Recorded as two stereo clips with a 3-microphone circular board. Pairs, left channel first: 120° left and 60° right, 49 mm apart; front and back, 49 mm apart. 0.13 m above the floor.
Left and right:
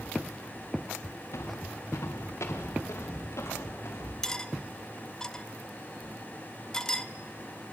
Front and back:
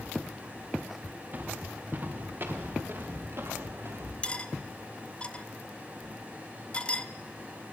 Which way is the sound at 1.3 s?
130° left.